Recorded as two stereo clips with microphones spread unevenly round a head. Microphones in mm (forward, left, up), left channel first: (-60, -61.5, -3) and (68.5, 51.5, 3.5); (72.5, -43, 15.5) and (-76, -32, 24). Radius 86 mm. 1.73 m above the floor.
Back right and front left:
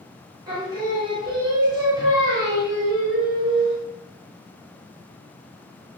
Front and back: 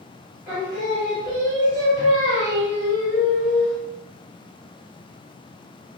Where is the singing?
100° left, 1.0 m.